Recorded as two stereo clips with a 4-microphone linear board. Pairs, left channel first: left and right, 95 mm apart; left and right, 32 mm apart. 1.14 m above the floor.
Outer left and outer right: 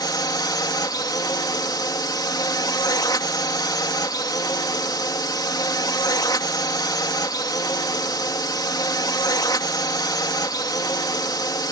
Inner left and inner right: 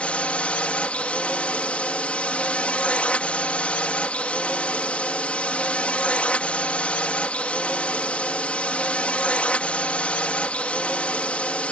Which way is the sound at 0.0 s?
45° left (ahead or behind).